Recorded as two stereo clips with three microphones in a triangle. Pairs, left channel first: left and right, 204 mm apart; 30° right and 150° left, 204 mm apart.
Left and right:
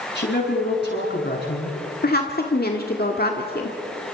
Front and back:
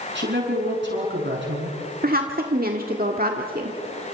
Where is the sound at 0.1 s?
120° left, 7 m.